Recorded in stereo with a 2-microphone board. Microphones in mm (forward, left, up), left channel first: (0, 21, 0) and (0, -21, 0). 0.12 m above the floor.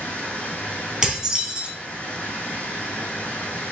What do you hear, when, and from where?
0.0 s running water: 40° left (ahead or behind), 1.8 m
1.0 s dishes clattering: 10° right (ahead or behind), 2 m